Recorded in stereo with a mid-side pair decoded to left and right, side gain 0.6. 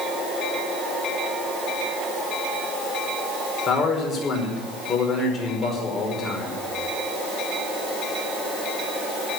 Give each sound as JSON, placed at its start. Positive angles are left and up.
{"t": 3.7, "sound": "a man speaking", "azimuth_deg": 35, "distance_m": 5.0}